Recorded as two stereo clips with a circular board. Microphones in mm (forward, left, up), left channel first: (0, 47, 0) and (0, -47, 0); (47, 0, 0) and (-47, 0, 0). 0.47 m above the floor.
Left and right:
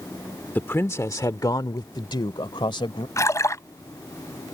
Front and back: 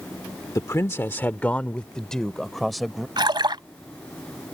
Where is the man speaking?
30° left; by 3.1 s 90° left.